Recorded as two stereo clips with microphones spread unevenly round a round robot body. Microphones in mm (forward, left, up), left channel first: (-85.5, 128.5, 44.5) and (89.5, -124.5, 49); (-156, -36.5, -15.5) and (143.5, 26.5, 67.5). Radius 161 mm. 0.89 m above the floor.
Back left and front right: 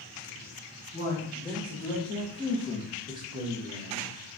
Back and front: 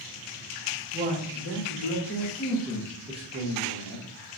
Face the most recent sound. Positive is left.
turn(degrees=-10)